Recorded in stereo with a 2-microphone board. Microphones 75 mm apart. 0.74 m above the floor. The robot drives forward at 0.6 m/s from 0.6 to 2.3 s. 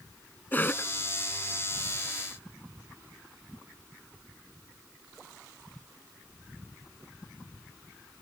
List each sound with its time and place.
0.5 s a cough: 25° left (ahead or behind)